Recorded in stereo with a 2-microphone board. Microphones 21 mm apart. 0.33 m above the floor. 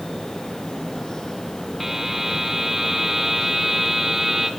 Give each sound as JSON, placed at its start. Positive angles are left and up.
{"t": 1.8, "sound": "a buzzer", "side_deg": -15, "distance_m": 2.0}